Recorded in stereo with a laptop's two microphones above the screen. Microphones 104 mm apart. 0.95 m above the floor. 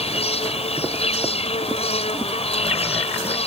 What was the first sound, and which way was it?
An insect, 80° left.